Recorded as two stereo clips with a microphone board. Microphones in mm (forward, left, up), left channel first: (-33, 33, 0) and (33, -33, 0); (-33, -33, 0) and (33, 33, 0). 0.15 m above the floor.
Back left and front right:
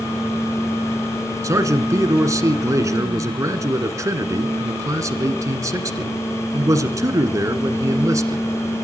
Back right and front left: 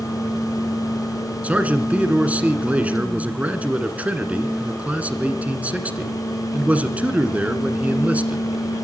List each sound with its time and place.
1.4 s a man speaking: 20° right, 1.6 m